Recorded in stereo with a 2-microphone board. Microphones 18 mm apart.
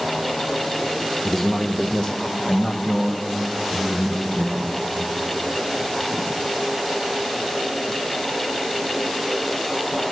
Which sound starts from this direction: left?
A man speaking, at 1.2 s.